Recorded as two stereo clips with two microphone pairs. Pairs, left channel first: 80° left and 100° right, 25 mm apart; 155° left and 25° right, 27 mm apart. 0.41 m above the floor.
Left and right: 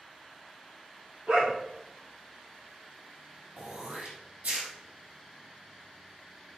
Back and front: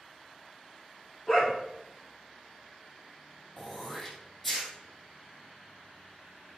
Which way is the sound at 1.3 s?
115° right.